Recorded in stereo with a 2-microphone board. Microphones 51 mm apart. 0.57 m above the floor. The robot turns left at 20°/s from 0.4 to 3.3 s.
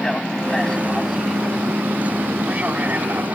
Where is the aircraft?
15° left (ahead or behind); by 3.4 s 40° right (ahead or behind).